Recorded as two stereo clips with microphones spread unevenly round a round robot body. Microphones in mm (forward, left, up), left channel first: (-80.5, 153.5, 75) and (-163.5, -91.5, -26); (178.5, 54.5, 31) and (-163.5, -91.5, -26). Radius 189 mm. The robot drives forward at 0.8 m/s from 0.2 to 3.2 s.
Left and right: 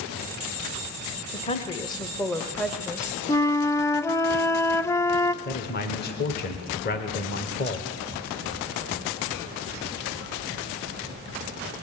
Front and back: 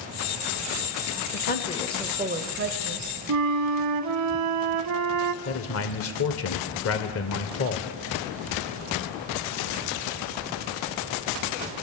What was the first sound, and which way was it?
A woman speaking, 15° right.